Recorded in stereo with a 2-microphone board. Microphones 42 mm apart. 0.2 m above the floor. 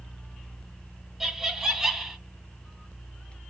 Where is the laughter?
10° right (ahead or behind), 1.2 m.